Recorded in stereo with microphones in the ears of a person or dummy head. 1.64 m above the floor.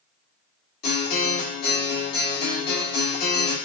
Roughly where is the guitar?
Left.